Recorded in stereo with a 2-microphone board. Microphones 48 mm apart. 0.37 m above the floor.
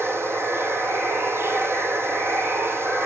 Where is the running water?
65° right (ahead or behind), 1.2 m.